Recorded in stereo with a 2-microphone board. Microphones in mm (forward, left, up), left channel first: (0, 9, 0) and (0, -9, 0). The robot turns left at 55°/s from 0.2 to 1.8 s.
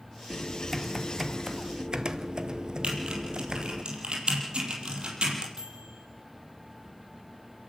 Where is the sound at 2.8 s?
60° right (ahead or behind), 5 m.